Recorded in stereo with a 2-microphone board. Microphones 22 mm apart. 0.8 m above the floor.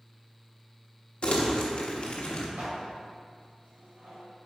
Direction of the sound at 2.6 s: 85° right.